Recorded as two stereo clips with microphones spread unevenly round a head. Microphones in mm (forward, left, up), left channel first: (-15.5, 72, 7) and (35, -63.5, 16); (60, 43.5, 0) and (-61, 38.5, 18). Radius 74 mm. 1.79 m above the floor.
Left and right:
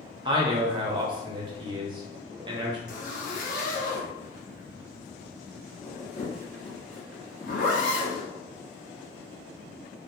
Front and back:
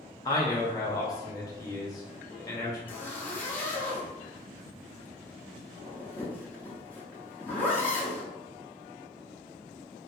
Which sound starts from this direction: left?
A zipper, at 2.9 s.